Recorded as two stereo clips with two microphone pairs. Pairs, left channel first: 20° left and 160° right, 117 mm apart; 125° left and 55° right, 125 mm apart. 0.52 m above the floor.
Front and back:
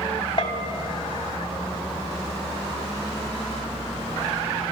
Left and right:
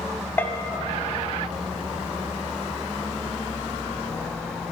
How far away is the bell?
About 0.5 m.